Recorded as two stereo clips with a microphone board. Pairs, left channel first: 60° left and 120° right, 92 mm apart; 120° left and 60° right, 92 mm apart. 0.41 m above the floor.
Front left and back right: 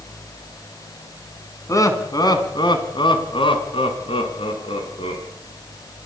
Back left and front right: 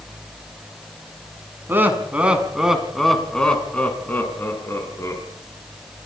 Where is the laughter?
5° left, 4 m; by 5.2 s 60° left, 6 m.